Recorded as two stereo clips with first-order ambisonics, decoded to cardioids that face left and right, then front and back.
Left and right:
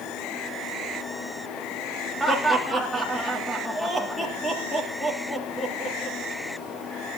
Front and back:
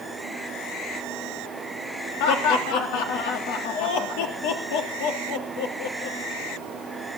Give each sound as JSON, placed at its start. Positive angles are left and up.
{"t": 2.2, "sound": "laughter", "azimuth_deg": 0, "distance_m": 3.0}